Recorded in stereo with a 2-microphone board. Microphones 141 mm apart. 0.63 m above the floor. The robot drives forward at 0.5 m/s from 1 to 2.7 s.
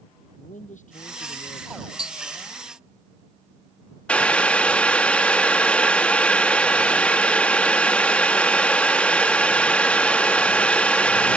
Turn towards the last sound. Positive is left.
turn(degrees=10)  # may be behind; listen again after turning